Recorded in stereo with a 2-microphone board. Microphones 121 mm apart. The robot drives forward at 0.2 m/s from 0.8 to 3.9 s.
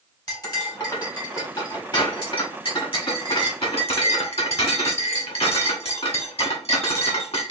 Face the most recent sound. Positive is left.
turn(degrees=50)  # may be behind; listen again after turning